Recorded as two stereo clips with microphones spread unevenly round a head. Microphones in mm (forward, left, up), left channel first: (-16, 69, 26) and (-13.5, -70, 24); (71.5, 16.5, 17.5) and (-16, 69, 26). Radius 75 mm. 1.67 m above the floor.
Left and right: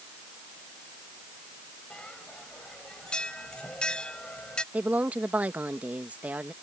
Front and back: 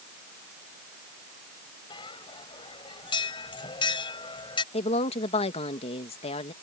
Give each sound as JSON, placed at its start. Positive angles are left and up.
{"t": 1.9, "sound": "a bell", "azimuth_deg": 10}
{"t": 4.7, "sound": "a woman speaking", "azimuth_deg": -10}